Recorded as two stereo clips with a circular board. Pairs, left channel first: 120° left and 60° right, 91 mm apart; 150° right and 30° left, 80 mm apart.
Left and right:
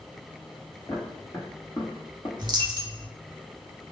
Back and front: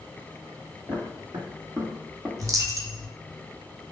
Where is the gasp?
No gasp in this recording.